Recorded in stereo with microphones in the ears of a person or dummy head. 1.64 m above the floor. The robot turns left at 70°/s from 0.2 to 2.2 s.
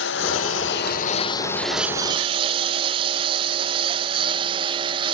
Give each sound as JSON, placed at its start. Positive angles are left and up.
{"t": 0.0, "sound": "a lawn mower", "side_deg": 75}